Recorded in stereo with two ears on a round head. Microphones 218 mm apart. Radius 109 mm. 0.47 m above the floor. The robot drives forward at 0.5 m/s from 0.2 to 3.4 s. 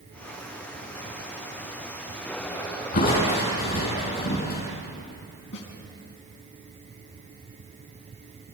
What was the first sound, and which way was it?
Crushing, 35° left (ahead or behind).